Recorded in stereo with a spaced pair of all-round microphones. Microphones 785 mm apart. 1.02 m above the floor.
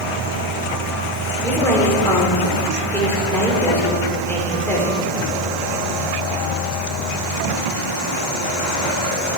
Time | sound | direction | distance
1.4 | a woman speaking | 5° left (ahead or behind) | 3.5 m